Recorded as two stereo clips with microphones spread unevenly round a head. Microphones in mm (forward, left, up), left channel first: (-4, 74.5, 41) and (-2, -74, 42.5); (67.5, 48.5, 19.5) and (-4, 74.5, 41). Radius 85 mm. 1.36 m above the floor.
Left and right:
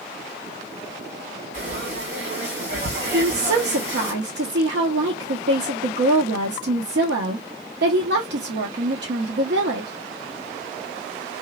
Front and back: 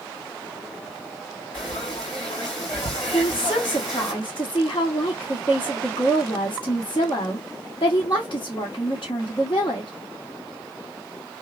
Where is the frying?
65° right, 1.6 m.